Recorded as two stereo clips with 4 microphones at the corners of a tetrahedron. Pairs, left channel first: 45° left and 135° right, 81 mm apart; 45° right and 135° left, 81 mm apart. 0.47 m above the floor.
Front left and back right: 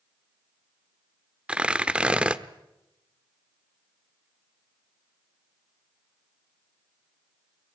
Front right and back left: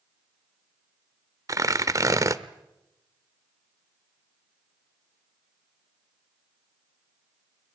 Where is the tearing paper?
150° left, 0.9 m.